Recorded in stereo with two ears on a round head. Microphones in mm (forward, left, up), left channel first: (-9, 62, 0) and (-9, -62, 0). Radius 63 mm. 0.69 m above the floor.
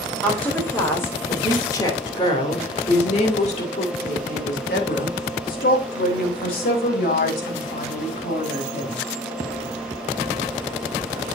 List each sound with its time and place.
0.2 s a woman speaking: 10° left (ahead or behind), 3 m; by 9.0 s 70° left (ahead or behind), 4.5 m